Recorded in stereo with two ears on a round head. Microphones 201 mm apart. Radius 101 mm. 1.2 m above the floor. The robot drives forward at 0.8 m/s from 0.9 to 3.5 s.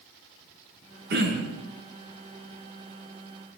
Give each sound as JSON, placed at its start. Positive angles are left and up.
{"t": 1.1, "sound": "throat clearing", "side_deg": -50, "distance_m": 5.5}